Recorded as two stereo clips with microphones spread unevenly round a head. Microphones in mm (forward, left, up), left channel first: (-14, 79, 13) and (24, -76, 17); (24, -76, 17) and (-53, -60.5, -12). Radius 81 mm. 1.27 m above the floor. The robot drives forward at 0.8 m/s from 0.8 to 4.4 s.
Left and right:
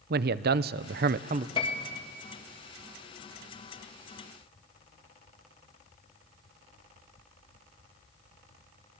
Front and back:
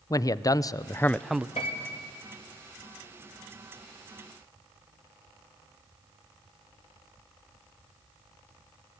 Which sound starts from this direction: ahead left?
A piano, at 1.6 s.